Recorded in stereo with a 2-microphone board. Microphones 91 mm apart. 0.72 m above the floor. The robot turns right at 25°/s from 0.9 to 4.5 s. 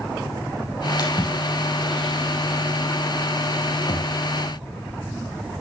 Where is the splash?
40° left (ahead or behind), 3.5 m; by 4.1 s 60° left (ahead or behind), 3.5 m.